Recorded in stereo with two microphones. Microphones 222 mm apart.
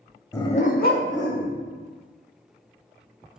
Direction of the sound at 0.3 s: 15° left (ahead or behind).